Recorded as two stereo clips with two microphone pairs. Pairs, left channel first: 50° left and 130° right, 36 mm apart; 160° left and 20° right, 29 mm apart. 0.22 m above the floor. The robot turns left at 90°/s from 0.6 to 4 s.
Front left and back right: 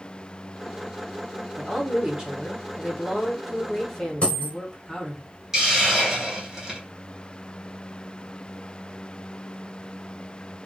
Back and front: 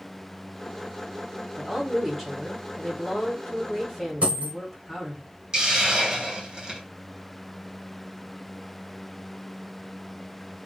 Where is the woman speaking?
50° right, 1.2 m; by 5.2 s 90° left, 1.2 m.